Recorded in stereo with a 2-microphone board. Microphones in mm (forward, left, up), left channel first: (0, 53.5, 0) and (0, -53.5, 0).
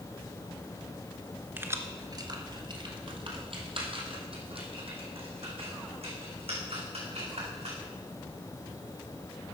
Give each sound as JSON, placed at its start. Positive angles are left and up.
{"t": 1.6, "sound": "keys jangling", "side_deg": -20, "distance_m": 0.9}